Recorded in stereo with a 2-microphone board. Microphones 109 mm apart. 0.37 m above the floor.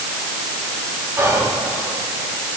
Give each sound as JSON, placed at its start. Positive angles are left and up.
{"t": 1.2, "sound": "whispering", "side_deg": -25, "distance_m": 2.5}